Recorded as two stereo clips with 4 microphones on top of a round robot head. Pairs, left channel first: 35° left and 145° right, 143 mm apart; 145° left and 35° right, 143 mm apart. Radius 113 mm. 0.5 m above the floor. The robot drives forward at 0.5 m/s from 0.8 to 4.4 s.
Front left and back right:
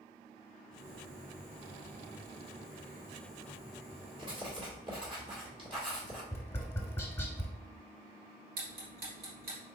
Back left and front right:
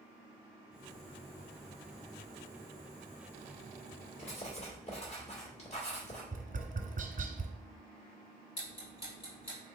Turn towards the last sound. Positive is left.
turn(degrees=-165)